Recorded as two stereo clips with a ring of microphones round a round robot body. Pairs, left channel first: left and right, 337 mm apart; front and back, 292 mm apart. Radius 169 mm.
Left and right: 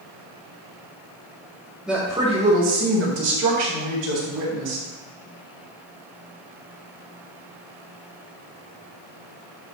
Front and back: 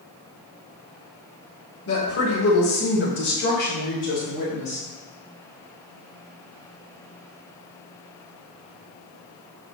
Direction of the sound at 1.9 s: Straight ahead.